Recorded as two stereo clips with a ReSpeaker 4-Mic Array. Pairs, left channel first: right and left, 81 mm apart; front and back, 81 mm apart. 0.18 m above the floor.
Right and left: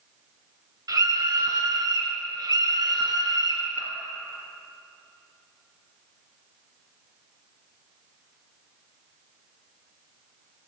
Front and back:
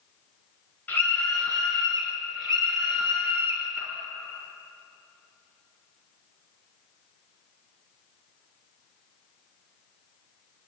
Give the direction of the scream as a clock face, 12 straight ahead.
10 o'clock.